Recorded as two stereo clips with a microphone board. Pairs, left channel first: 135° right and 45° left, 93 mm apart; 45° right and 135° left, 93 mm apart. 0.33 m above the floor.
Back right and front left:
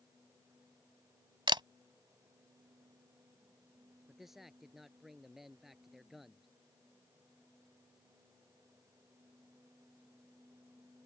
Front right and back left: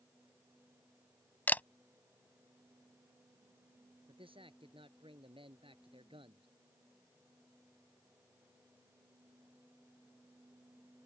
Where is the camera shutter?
25° left.